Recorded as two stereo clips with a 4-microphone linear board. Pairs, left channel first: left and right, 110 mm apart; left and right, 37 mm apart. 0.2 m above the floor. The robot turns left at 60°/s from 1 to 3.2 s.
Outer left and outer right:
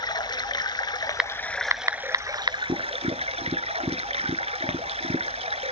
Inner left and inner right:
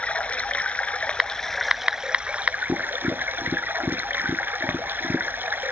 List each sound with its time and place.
0.0 s running water: 45° left, 0.7 m; by 5.7 s 90° right, 0.7 m
1.2 s typing on a keyboard: 5° right (ahead or behind), 0.7 m; by 2.6 s 45° right (ahead or behind), 0.7 m
2.7 s tapping: 70° right (ahead or behind), 0.6 m; by 5.3 s 60° right (ahead or behind), 0.6 m